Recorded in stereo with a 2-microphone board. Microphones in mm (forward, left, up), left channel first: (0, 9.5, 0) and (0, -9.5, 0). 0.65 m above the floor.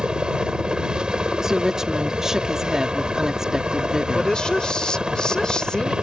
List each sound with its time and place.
0.0 s a helicopter: 55° right (ahead or behind)
1.4 s a woman speaking: 35° right (ahead or behind)
4.2 s a woman speaking: 55° left (ahead or behind)